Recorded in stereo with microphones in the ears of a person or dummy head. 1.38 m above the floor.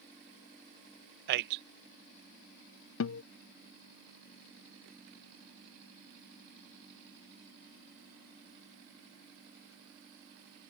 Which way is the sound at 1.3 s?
50° right (ahead or behind).